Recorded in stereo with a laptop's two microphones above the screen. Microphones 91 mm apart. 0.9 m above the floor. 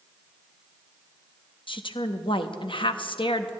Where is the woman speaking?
65° left (ahead or behind), 0.8 m.